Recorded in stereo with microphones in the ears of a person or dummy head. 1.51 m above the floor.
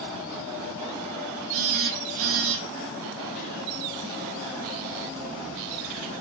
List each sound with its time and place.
1.5 s a phone buzzing: 70° right (ahead or behind), 0.9 m